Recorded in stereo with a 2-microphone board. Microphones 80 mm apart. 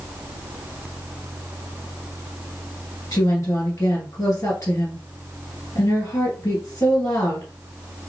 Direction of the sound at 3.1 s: 45° left (ahead or behind).